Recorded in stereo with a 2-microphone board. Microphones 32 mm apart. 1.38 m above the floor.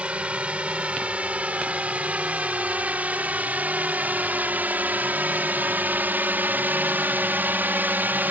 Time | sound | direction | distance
0.0 | a drone | 35° right (ahead or behind) | ?